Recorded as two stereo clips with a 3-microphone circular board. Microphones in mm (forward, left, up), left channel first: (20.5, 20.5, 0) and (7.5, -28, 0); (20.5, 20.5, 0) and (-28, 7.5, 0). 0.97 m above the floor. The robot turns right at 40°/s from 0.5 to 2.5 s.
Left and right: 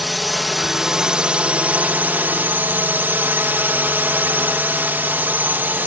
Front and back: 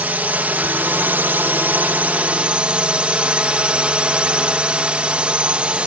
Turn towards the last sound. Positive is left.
turn(degrees=-115)